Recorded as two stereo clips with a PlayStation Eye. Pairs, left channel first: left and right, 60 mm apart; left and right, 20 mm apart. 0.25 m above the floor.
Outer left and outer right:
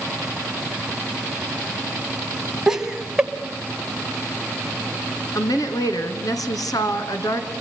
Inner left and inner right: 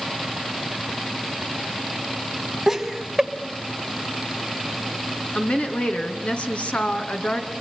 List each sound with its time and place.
2.7 s laughter: 10° right (ahead or behind), 1.6 m
5.3 s a woman speaking: 70° left (ahead or behind), 2.5 m